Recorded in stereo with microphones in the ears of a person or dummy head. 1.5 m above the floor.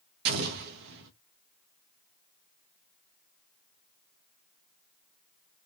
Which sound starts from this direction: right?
An explosion, at 0.2 s.